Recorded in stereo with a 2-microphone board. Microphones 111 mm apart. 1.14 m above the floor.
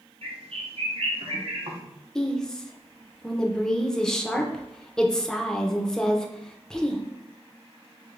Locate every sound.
0.2 s a bird: 60° right (ahead or behind), 0.7 m
2.1 s a woman speaking: 5° left (ahead or behind), 0.5 m